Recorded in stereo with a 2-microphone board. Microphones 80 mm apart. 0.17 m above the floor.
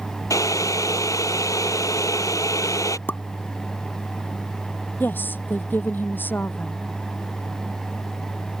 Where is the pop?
25° left (ahead or behind).